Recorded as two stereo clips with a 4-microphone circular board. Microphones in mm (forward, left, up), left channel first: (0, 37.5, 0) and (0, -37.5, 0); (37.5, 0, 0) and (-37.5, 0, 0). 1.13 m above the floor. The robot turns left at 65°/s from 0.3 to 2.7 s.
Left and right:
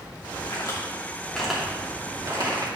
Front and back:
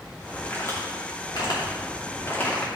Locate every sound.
0.5 s a crack: 65° left, 2.5 m; by 2.7 s 75° right, 2.5 m